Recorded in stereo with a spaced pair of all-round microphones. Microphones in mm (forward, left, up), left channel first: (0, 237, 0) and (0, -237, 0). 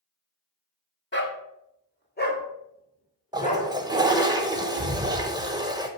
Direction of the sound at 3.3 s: 10° right (ahead or behind).